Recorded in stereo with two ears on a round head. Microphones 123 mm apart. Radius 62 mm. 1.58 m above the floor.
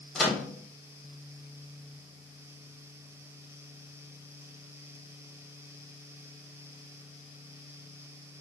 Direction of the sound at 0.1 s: Centre (ahead or behind).